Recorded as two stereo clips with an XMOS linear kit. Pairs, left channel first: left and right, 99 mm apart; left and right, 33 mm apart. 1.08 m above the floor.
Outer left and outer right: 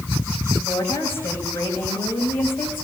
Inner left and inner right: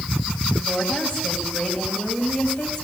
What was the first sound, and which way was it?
A woman speaking, 20° left (ahead or behind).